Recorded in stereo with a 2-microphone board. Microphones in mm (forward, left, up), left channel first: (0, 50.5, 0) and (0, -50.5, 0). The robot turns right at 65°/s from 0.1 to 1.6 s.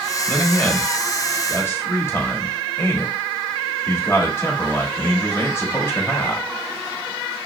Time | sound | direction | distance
0.3 | a man speaking | centre (ahead or behind) | 1.0 m